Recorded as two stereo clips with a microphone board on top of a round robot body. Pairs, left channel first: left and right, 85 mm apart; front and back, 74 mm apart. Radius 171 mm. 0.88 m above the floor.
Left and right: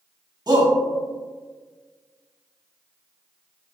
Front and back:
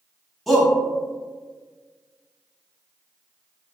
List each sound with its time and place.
0.5 s a shout: 90° right, 1.3 m